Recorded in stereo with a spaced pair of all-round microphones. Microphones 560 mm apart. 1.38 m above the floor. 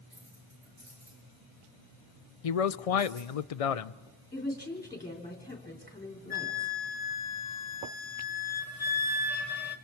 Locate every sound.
0.1 s keys jangling: 20° right (ahead or behind), 9 m
2.4 s a man speaking: 80° left, 0.6 m
4.3 s a woman speaking: 5° left (ahead or behind), 3.5 m
6.3 s a flute: 80° left, 1.4 m